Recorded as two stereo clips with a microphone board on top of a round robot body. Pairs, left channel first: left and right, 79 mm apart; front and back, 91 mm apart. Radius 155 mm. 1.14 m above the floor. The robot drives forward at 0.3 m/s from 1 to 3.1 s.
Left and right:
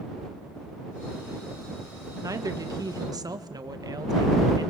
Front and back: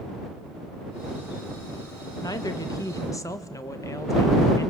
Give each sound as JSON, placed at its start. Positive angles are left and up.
{"t": 2.2, "sound": "a woman speaking", "azimuth_deg": -45, "distance_m": 1.8}